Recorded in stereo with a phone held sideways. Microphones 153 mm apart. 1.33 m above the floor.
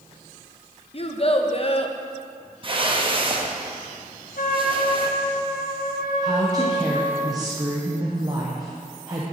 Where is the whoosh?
35° right (ahead or behind), 0.7 m.